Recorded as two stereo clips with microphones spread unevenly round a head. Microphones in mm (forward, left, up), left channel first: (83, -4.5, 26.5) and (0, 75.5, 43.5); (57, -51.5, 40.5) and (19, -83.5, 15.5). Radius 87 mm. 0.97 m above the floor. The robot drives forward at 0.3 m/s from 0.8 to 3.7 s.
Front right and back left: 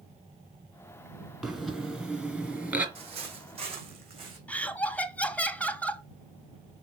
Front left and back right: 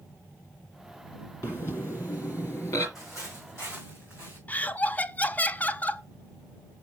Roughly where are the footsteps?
Behind left.